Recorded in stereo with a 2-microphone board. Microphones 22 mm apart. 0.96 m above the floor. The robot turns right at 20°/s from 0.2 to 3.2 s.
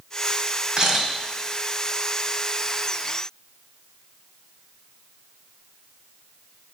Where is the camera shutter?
30° right (ahead or behind), 1.9 m; by 1.1 s 25° right (ahead or behind), 1.9 m.